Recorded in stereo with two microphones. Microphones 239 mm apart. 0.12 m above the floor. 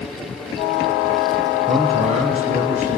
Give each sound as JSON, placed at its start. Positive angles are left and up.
{"t": 1.7, "sound": "a man speaking", "side_deg": -30, "distance_m": 1.9}